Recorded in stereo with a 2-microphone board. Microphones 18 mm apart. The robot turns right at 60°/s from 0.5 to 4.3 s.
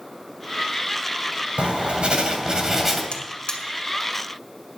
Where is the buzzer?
85° left, 2.0 m; by 3.6 s 60° left (ahead or behind), 2.0 m.